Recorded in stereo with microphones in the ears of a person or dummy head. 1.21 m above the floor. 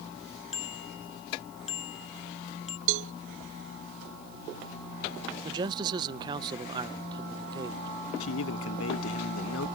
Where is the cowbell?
65° right (ahead or behind).